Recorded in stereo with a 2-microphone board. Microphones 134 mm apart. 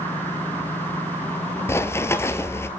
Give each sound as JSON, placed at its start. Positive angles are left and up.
{"t": 1.7, "sound": "running footsteps", "side_deg": 20, "distance_m": 1.0}